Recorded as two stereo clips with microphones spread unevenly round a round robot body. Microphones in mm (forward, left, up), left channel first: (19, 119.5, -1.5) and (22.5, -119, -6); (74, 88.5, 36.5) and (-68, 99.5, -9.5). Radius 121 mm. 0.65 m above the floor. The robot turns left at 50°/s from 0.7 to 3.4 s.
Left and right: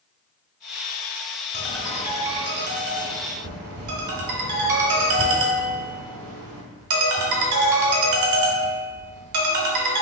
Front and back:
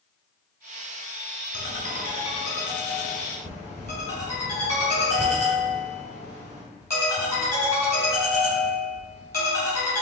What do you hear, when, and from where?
1.5 s a ringtone: 10° left, 1.3 m; by 10.0 s 80° right, 1.3 m